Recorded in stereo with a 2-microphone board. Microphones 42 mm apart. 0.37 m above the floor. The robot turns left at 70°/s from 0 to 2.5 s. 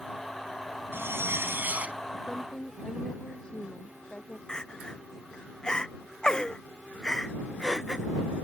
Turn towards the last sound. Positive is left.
turn(degrees=15)  # may be behind; listen again after turning